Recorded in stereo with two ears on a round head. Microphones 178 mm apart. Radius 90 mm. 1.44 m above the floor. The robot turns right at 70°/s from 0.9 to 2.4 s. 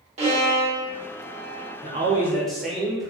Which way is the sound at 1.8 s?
40° right.